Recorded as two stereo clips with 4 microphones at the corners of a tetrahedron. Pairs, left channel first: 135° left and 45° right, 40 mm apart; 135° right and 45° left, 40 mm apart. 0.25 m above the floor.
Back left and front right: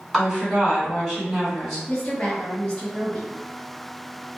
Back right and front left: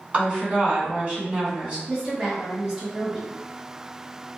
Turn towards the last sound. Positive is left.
turn(degrees=95)